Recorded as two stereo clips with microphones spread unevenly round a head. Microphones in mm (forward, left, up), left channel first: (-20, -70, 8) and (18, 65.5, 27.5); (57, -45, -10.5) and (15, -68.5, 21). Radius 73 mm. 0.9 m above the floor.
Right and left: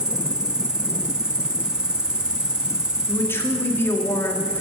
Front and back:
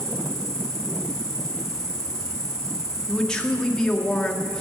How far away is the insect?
About 1.1 m.